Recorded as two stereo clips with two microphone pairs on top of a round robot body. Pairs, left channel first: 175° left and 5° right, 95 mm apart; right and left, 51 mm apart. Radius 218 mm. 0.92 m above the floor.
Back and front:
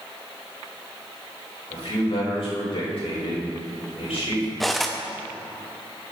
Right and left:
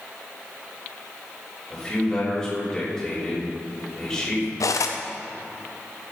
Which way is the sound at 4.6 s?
95° right.